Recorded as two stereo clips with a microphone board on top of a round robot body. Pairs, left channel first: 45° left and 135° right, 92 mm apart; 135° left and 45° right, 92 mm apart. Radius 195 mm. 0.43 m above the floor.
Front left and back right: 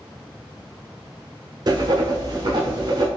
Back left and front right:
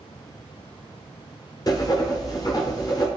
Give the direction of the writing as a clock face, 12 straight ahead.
6 o'clock.